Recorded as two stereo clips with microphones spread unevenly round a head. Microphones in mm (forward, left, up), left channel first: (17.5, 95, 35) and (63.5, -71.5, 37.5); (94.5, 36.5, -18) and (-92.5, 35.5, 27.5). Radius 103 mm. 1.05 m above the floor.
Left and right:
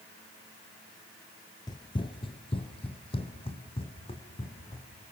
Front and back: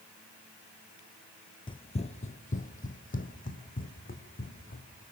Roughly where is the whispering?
No whispering in this recording.